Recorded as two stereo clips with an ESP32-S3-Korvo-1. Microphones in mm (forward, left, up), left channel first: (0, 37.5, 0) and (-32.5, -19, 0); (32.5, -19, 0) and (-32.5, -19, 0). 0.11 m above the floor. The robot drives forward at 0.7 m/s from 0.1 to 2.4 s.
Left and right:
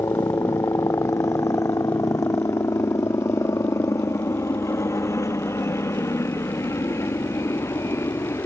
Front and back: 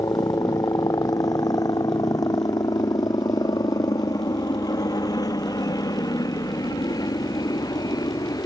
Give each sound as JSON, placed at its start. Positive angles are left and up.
{"t": 0.0, "sound": "a helicopter", "azimuth_deg": 25}